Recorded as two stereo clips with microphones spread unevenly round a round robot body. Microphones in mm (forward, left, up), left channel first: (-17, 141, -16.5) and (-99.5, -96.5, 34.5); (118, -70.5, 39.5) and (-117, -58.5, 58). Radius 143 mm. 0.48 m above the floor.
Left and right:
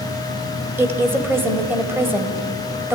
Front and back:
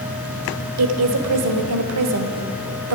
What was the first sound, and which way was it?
A woman speaking, 165° left.